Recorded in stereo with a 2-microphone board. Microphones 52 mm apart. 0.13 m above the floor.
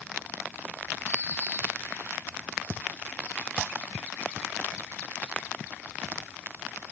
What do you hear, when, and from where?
1.1 s a bird: 55° right (ahead or behind), 2.5 m